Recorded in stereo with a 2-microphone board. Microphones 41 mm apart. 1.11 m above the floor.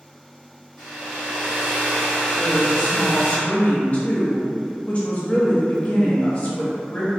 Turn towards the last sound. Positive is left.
turn(degrees=30)  # may be behind; listen again after turning